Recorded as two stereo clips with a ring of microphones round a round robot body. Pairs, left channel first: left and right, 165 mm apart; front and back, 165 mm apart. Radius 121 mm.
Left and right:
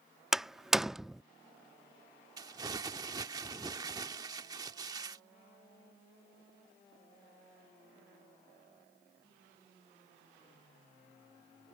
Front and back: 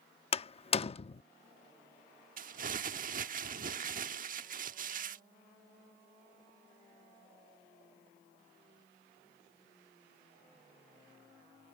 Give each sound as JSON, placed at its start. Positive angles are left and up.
{"t": 0.3, "sound": "a door slam", "azimuth_deg": -5}
{"t": 2.4, "sound": "crumpling", "azimuth_deg": -155}